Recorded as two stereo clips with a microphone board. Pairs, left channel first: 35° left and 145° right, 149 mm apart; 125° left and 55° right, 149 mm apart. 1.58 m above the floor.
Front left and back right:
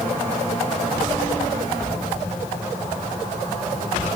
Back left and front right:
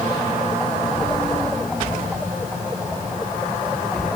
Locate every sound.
Only background noise.